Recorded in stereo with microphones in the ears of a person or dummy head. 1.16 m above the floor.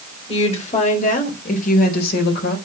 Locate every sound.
0.3 s a woman speaking: 35° left (ahead or behind), 3.5 m; by 2.6 s 60° left (ahead or behind), 4 m